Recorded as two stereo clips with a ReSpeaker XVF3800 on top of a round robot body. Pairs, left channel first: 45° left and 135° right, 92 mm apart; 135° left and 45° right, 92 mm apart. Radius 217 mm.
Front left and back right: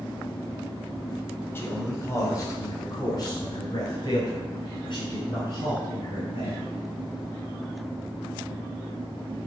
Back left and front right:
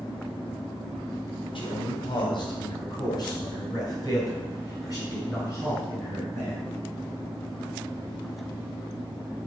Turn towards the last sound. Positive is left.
turn(degrees=75)